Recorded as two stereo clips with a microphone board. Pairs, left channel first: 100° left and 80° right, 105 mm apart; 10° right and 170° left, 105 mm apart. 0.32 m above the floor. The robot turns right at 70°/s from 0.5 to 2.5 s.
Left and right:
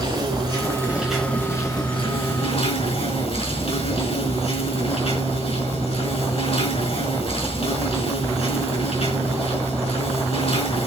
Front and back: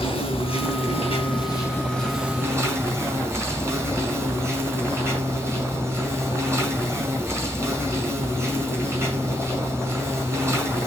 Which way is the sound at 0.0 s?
35° right.